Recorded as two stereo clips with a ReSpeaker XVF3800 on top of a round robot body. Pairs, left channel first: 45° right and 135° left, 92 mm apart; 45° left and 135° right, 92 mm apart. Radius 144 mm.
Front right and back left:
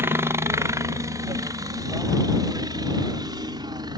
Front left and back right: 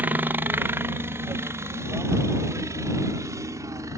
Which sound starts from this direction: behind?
A helicopter, at 0.0 s.